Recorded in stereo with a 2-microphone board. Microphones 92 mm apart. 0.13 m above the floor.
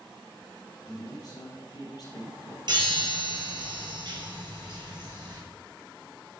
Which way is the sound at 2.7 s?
55° right (ahead or behind).